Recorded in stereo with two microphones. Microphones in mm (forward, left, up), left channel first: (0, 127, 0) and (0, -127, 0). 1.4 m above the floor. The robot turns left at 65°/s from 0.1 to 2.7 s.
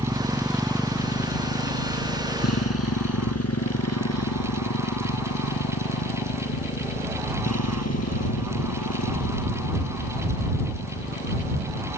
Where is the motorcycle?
20° right (ahead or behind); by 12.0 s 75° left (ahead or behind).